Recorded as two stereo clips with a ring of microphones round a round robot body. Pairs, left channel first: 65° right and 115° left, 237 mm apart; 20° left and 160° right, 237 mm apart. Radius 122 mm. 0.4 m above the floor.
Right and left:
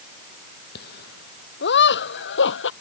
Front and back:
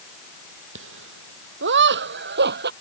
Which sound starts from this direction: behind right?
Laughter, at 0.8 s.